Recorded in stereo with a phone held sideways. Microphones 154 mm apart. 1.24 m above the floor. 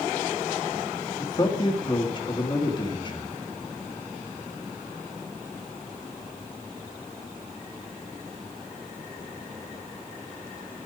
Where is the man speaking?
30° left (ahead or behind), 2 m.